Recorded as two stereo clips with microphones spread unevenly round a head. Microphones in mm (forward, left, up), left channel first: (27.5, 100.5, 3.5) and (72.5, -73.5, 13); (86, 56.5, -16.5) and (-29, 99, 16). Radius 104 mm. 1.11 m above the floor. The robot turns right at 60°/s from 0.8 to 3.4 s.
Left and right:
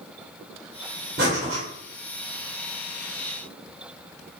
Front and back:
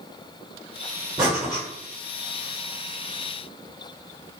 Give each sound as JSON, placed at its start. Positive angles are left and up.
{"t": 1.2, "sound": "breathing", "azimuth_deg": -120, "distance_m": 1.2}